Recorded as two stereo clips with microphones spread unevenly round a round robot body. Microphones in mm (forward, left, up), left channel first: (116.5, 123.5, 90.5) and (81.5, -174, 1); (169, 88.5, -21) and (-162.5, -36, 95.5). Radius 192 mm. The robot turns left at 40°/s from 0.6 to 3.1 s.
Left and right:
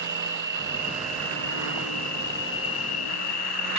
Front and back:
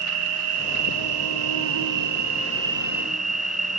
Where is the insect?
145° right, 0.7 m; by 3.8 s 115° left, 0.7 m.